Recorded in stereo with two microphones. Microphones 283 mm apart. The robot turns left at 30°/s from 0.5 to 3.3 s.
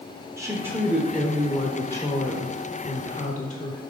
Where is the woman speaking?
160° right, 0.9 m; by 3.8 s 120° left, 0.9 m.